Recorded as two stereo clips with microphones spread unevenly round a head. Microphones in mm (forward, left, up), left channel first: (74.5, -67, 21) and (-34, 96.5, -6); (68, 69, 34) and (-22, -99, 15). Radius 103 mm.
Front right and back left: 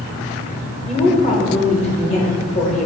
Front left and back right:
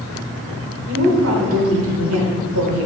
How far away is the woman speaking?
About 1.0 m.